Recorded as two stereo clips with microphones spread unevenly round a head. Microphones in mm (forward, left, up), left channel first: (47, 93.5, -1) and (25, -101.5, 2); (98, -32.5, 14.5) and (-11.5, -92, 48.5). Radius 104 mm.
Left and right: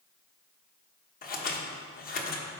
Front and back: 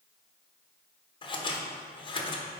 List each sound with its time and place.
1.2 s scissors: 50° left, 1.0 m